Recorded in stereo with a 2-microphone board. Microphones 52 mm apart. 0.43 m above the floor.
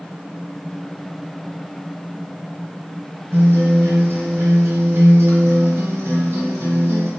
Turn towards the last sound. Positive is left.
turn(degrees=-60)  # may be behind; listen again after turning